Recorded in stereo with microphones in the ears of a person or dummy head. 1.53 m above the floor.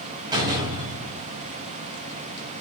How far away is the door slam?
About 5.5 m.